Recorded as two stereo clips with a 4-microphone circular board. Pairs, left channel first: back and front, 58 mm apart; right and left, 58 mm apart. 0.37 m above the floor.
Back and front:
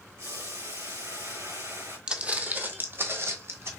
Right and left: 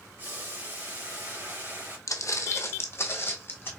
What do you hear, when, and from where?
0.2 s boiling: 35° left, 3 m
2.1 s footsteps: 75° right, 0.7 m; by 3.7 s 40° right, 1.4 m